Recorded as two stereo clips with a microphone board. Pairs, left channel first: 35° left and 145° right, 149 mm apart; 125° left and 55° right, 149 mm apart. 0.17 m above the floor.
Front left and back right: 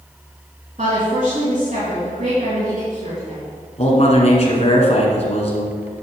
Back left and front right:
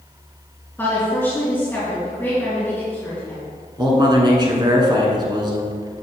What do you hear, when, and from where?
0.8 s a woman speaking: 160° right, 3.5 m
3.8 s a man speaking: straight ahead, 2 m